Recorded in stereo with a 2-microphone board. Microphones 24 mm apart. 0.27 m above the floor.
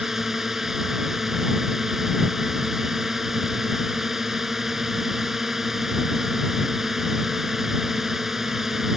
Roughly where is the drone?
Centre.